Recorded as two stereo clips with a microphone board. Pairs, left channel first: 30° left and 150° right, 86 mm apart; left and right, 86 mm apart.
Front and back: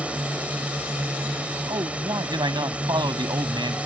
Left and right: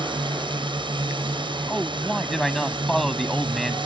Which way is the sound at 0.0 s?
75° right.